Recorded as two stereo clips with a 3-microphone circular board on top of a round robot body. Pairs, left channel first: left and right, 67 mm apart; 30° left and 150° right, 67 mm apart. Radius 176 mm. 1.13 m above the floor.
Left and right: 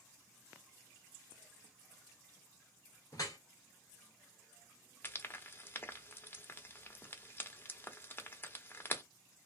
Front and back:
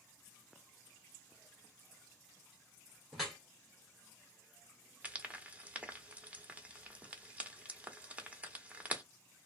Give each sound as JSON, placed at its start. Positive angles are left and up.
{"t": 3.1, "sound": "dripping", "azimuth_deg": 125, "distance_m": 0.5}
{"t": 5.0, "sound": "frying", "azimuth_deg": 145, "distance_m": 1.0}